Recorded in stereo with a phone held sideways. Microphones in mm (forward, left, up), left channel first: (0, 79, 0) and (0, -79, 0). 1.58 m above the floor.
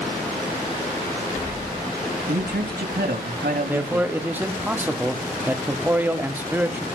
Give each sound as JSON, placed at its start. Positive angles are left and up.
{"t": 2.3, "sound": "a man speaking", "side_deg": -80, "distance_m": 2.5}
{"t": 3.7, "sound": "a man speaking", "side_deg": -10, "distance_m": 1.3}